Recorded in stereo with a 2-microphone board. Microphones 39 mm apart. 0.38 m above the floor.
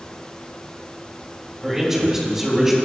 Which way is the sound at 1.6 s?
10° right (ahead or behind).